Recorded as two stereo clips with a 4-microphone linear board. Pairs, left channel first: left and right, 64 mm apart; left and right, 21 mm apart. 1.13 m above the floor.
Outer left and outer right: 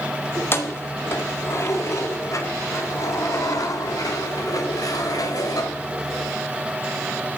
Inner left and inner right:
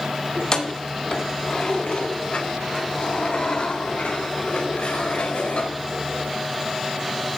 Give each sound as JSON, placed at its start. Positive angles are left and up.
{"t": 0.3, "sound": "keys jangling", "side_deg": 35, "distance_m": 2.5}